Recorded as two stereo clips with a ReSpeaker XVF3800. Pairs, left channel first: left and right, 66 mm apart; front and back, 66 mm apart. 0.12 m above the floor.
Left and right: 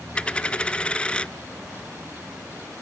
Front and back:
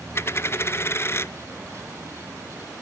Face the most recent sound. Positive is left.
turn(degrees=25)